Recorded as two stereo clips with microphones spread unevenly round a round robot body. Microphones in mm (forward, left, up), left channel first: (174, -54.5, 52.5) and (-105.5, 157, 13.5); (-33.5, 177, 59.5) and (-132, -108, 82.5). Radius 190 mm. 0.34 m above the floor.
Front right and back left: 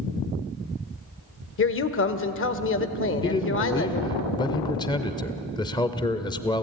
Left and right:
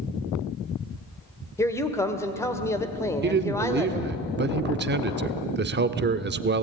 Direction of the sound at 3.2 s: 115° right.